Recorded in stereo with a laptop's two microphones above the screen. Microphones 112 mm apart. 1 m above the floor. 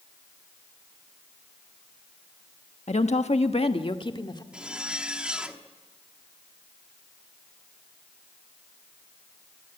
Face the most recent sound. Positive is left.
turn(degrees=-10)  # may be behind; listen again after turning